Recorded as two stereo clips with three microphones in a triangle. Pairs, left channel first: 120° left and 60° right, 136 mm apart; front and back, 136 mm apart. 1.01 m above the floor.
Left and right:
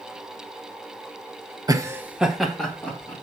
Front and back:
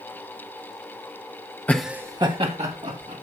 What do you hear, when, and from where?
1.7 s laughter: 60° right, 0.8 m; by 3.1 s 160° right, 1.8 m